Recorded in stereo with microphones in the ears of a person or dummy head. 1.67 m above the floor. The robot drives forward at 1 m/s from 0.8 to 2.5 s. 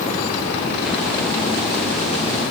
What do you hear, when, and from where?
Only background noise.